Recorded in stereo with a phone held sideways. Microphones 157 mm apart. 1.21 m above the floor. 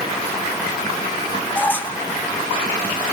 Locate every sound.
1.6 s a squeak: 10° left (ahead or behind), 1.4 m